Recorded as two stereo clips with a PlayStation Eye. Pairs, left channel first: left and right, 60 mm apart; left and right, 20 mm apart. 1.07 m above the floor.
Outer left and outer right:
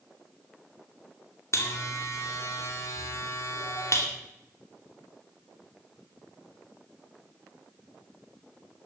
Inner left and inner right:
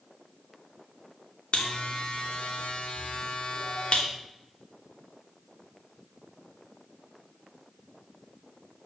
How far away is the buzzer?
About 2.5 m.